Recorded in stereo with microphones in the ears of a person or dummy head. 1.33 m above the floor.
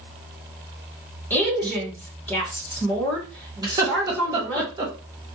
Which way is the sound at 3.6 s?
20° right (ahead or behind).